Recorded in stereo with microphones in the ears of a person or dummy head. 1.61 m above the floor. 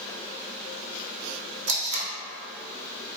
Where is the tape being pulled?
60° right (ahead or behind), 0.7 m.